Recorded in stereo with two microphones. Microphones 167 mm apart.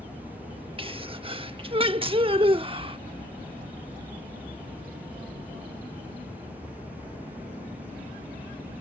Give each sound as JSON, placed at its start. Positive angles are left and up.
{"t": 0.8, "sound": "a sneeze", "side_deg": -35}